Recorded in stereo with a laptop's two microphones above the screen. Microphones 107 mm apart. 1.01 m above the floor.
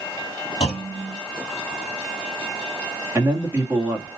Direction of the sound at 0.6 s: 65° left (ahead or behind).